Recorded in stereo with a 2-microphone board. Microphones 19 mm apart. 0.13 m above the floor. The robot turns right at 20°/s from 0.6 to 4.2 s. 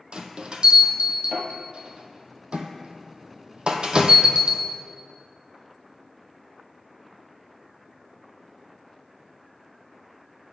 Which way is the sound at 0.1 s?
55° right (ahead or behind).